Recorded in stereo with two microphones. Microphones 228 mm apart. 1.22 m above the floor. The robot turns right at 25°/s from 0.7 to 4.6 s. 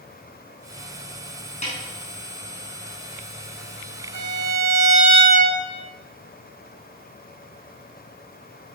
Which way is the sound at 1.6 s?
30° left (ahead or behind).